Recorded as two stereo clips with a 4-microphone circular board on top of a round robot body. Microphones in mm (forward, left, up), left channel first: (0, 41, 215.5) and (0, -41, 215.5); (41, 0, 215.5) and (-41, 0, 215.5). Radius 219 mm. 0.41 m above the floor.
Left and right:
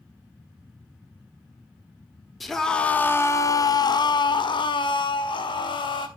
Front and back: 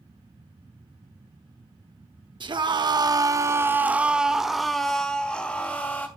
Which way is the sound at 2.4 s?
Straight behind.